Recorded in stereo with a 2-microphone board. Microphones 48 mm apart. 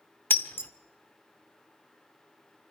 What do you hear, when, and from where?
0.3 s breaking glass: 50° left (ahead or behind), 1.2 m